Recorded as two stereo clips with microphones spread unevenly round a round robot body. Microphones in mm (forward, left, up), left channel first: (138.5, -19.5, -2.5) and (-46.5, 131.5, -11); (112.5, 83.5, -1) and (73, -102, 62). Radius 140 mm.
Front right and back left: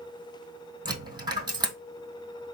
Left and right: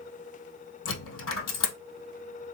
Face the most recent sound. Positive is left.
turn(degrees=70)